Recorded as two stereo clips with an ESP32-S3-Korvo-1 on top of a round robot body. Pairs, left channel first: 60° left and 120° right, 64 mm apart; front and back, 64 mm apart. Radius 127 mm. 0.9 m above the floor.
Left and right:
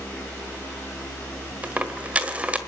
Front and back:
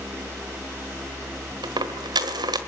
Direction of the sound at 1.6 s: 170° left.